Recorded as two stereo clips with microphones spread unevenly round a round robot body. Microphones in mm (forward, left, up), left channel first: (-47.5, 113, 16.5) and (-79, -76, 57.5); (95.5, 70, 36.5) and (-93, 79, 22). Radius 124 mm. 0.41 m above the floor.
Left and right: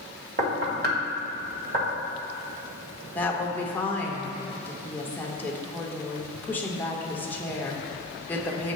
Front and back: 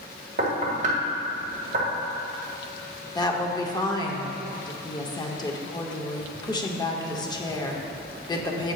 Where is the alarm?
I don't hear an alarm.